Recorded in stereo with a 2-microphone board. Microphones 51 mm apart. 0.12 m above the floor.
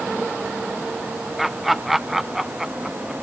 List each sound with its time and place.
1.4 s laughter: centre (ahead or behind); by 3.1 s 10° right (ahead or behind)